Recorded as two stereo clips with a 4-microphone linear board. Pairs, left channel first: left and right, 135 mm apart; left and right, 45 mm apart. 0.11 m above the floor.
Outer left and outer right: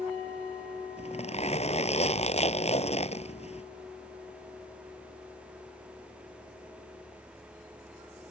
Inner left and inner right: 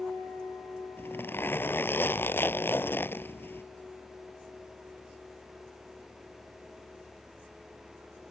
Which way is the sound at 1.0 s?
55° left (ahead or behind).